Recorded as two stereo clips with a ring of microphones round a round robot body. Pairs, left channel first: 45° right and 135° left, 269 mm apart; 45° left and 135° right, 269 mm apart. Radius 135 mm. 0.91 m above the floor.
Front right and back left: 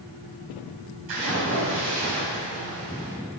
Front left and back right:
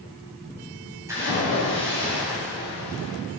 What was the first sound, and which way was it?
A splash, 145° left.